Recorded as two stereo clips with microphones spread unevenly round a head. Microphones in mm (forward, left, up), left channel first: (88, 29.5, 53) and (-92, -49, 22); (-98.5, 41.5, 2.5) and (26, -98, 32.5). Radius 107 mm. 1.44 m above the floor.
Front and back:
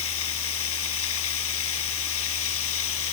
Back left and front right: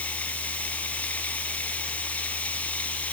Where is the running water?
45° left.